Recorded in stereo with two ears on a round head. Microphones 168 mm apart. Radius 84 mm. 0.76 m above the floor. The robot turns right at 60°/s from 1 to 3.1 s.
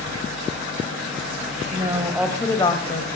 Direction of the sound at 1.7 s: 35° right.